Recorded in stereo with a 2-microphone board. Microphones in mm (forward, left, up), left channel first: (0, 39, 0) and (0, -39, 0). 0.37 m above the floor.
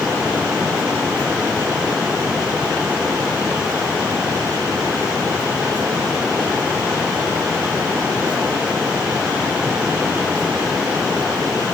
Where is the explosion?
I don't hear an explosion.